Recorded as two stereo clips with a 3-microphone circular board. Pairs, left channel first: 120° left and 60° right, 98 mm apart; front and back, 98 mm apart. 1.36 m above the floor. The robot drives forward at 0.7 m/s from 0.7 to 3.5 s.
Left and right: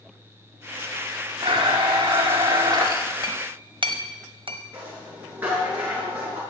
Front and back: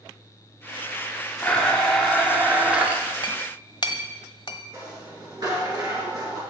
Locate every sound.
1.4 s a blender: 75° right, 2 m; by 3.1 s 110° right, 2 m
3.2 s a clink: 30° right, 1.3 m; by 4.6 s 35° right, 1.2 m
4.7 s a rattle: 130° right, 7.5 m